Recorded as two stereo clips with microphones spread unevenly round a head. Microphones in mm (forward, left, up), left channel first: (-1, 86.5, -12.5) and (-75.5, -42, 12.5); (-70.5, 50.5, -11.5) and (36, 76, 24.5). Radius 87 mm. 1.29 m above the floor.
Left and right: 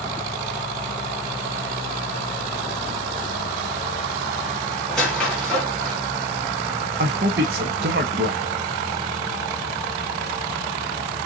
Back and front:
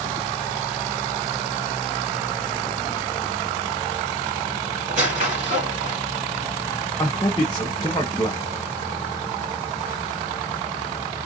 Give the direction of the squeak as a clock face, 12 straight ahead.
1 o'clock.